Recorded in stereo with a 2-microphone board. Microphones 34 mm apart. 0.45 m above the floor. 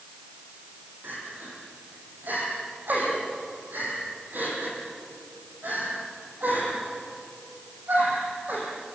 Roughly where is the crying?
Right.